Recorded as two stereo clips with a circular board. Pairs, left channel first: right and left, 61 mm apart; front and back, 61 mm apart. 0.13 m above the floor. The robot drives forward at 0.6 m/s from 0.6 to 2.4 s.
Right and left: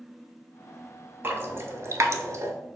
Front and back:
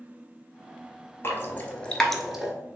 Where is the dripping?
40° left, 0.9 m; by 2.5 s 100° left, 0.7 m.